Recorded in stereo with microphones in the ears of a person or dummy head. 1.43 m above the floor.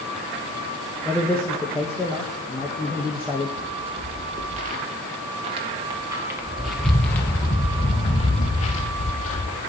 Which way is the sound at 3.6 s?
45° right (ahead or behind).